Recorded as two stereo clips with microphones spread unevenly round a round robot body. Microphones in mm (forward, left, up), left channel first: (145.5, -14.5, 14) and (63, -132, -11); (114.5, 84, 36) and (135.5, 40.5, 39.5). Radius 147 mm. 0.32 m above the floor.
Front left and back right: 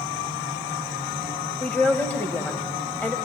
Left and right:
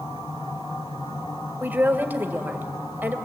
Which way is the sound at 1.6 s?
30° right.